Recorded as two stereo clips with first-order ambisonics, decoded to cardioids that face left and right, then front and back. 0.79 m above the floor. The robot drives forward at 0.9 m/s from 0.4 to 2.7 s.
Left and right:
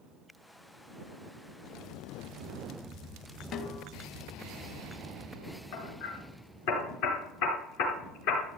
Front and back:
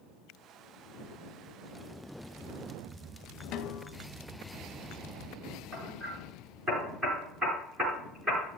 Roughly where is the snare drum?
Ahead left.